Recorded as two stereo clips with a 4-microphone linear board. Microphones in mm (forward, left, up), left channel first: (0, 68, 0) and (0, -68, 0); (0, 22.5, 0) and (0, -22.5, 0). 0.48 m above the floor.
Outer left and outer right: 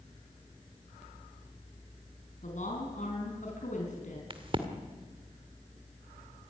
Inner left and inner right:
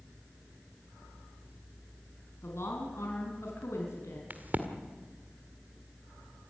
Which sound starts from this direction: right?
A crack, at 4.3 s.